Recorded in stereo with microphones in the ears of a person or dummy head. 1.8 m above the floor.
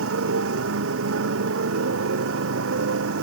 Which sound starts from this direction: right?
A motorcycle, at 0.0 s.